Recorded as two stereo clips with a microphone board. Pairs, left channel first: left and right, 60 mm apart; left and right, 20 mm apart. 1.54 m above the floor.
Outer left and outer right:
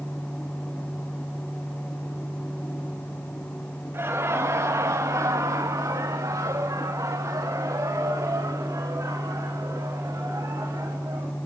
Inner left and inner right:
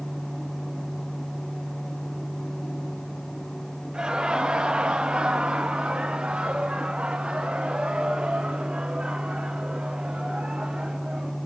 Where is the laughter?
40° right (ahead or behind), 1.7 m; by 11.4 s 55° right (ahead or behind), 4.5 m.